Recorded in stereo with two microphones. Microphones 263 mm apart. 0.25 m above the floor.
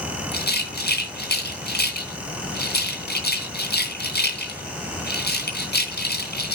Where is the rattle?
40° left (ahead or behind), 2.5 m.